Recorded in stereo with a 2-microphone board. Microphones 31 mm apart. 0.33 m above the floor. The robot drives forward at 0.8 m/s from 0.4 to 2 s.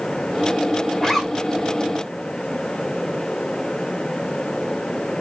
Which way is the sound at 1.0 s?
5° left (ahead or behind).